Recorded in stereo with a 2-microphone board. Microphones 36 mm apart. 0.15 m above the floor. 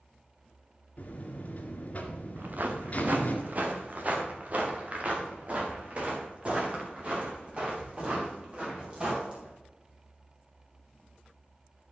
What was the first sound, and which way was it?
A buzzer, 40° left (ahead or behind).